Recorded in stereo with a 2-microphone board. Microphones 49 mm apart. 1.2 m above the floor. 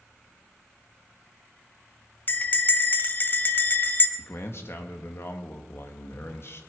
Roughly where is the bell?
Left.